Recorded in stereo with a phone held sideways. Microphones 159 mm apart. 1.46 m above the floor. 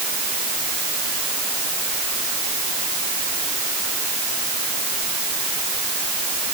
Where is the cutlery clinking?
I don't hear cutlery clinking.